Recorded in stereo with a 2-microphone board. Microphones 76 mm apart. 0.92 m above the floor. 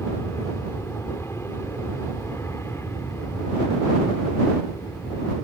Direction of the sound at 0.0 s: 35° left (ahead or behind).